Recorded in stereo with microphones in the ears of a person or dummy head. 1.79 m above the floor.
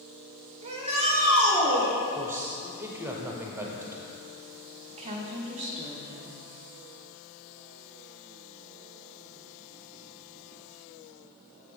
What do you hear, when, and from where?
0.6 s a shout: 35° right (ahead or behind), 1.6 m
2.1 s a man speaking: 10° right (ahead or behind), 0.9 m
4.9 s a woman speaking: 35° right (ahead or behind), 1.0 m